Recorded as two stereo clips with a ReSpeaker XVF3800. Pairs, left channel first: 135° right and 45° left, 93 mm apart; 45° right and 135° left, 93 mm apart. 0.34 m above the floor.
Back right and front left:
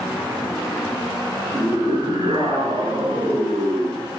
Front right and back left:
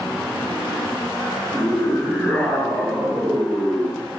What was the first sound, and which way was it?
A scream, 20° left.